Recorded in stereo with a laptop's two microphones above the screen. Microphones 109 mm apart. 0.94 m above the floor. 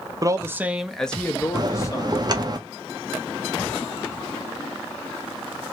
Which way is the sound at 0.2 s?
35° right (ahead or behind).